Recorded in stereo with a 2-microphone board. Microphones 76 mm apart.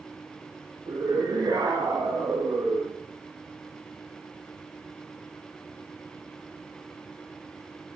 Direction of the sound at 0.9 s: 55° right (ahead or behind).